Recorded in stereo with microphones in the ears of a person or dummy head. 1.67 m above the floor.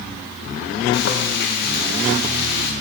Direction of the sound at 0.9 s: 55° left (ahead or behind).